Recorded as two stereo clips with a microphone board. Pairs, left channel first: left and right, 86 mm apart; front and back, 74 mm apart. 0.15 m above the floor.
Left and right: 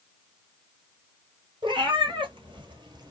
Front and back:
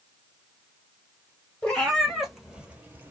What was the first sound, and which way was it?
A cat meowing, 75° right.